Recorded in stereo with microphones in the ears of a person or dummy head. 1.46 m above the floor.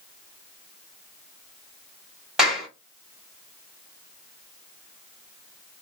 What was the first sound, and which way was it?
A clap, 5° right (ahead or behind).